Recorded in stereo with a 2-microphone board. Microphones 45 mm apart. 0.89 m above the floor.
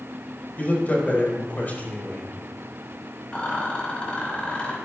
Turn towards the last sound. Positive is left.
turn(degrees=25)  # may be behind; listen again after turning